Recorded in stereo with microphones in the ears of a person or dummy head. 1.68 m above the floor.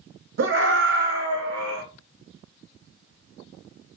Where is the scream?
70° right (ahead or behind), 2 m; by 1.8 s 85° right, 3 m.